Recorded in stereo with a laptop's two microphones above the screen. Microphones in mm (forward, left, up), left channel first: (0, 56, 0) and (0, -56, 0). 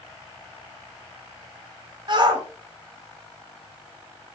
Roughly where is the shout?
Right.